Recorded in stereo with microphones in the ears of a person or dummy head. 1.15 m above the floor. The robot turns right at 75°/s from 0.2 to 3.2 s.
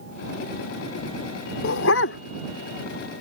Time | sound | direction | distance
1.6 | a dog barking | 80° left | ?